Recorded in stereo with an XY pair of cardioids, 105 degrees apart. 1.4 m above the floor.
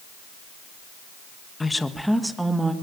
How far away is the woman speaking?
About 1.8 m.